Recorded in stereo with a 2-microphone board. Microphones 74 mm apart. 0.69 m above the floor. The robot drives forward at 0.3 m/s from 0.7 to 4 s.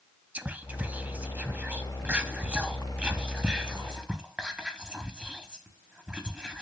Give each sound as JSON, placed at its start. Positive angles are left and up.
{"t": 0.3, "sound": "whispering", "side_deg": -20, "distance_m": 0.6}